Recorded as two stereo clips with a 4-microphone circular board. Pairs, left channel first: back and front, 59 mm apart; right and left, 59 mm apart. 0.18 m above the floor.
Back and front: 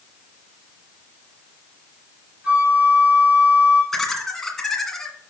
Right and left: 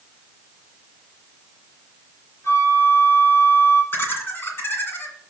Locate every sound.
2.4 s a flute: 65° right, 2 m
3.9 s laughter: 100° right, 1.9 m